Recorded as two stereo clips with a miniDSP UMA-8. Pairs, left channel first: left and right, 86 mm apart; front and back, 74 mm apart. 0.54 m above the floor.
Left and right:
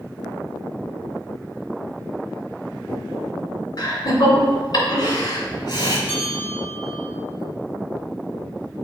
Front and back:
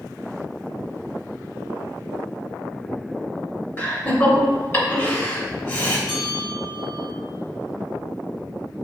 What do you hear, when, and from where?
3.8 s laughter: 55° left, 2.5 m
6.1 s a bell: 15° left, 3 m